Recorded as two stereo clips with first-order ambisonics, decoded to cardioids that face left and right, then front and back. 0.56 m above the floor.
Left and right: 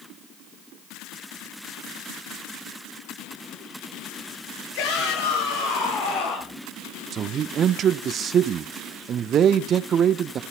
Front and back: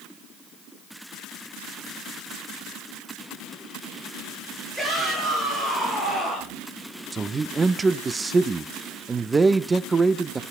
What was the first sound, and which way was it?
A shout, 90° left.